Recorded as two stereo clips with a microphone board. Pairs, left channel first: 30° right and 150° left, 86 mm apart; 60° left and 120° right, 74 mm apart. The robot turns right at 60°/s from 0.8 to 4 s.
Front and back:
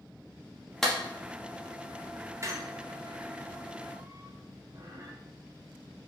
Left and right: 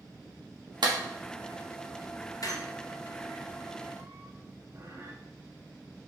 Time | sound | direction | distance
0.8 | a clap | 115° right | 1.0 m
2.4 | a squeak | 95° left | 0.8 m